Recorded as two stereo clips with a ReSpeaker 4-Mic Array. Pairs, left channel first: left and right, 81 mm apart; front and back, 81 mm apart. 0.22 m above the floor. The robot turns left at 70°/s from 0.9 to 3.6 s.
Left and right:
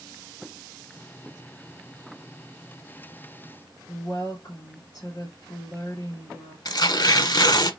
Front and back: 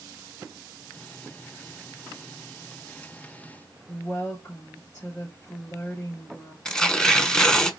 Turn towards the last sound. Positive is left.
turn(degrees=80)